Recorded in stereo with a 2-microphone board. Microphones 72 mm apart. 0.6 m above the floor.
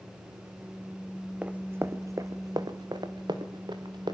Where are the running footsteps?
20° right (ahead or behind), 1.6 m; by 4.2 s 80° right, 3.5 m.